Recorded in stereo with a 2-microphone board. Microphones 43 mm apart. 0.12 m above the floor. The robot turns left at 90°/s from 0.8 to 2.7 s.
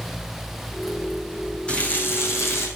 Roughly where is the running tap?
Behind left.